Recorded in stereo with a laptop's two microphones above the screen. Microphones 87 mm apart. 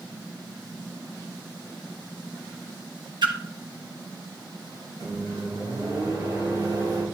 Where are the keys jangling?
I don't hear keys jangling.